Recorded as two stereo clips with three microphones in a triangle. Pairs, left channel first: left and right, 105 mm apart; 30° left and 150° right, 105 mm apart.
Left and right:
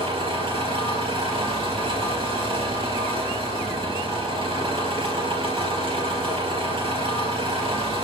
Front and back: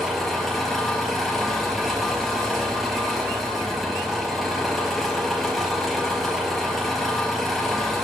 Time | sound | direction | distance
0.0 | an engine running | 60° right | 3.5 m